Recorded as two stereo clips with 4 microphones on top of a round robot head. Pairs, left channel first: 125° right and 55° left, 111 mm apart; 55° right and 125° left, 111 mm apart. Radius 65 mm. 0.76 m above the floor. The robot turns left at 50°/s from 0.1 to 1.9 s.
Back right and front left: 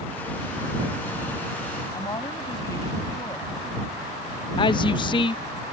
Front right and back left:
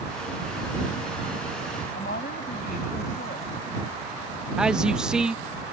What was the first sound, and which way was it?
A woman speaking, 65° right.